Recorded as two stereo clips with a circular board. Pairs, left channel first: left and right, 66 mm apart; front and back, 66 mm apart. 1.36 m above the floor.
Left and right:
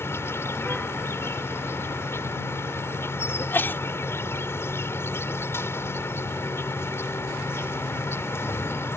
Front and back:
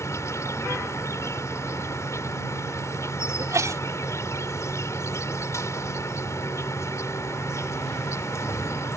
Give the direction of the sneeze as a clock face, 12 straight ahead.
7 o'clock.